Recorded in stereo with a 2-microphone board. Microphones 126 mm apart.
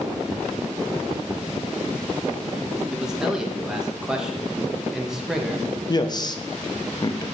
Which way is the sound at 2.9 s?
5° right (ahead or behind).